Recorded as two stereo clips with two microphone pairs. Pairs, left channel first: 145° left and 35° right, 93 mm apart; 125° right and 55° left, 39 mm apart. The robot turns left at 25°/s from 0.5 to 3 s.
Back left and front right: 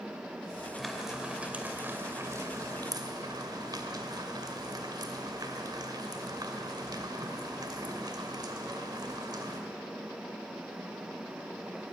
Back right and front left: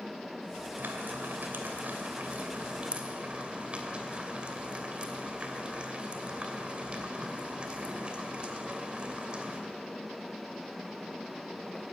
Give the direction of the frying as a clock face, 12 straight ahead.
10 o'clock.